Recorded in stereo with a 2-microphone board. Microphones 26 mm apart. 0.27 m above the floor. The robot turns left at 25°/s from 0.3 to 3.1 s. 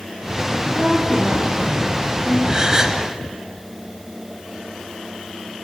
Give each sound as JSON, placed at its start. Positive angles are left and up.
{"t": 0.5, "sound": "a woman speaking", "azimuth_deg": -110, "distance_m": 6.5}
{"t": 2.5, "sound": "a gasp", "side_deg": -25, "distance_m": 1.5}